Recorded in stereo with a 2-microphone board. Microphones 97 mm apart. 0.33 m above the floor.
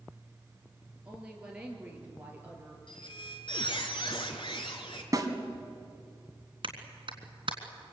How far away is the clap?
About 3.5 m.